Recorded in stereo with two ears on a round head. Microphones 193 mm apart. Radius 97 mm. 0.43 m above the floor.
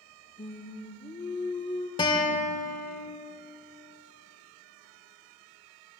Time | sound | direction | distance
0.4 | singing | 20° left (ahead or behind) | 0.7 m
2.0 | a guitar | 20° left (ahead or behind) | 1.3 m